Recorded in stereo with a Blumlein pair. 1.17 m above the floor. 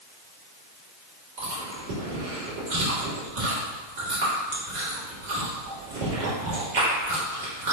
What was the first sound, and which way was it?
Chewing, 50° right.